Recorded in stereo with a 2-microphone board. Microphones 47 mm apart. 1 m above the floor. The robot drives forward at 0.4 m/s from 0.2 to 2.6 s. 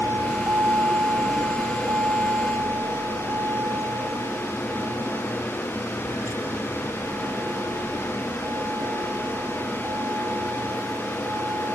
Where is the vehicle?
60° right (ahead or behind); by 11.8 s 55° right (ahead or behind).